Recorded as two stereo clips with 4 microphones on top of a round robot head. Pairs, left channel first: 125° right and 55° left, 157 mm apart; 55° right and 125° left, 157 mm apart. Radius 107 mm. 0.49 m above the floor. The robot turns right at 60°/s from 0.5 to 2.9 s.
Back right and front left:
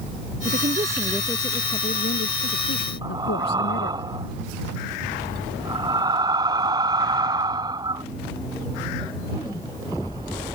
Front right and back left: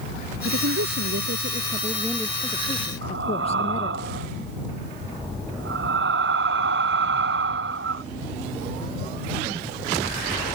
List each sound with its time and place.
0.5 s a woman speaking: 105° left; by 4.0 s 110° right
3.0 s breathing: 125° left